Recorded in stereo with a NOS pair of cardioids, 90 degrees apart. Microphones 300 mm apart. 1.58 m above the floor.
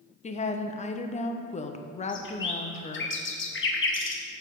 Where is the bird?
40° left, 0.9 m.